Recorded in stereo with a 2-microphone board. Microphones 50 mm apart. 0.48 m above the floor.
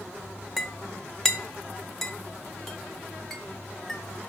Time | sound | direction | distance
0.6 | a clink | 5° left (ahead or behind) | 1.0 m